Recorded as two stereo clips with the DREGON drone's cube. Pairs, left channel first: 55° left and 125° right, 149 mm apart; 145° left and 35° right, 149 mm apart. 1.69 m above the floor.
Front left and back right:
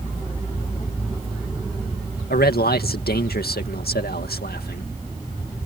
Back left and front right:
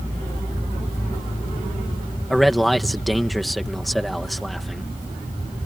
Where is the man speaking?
55° left.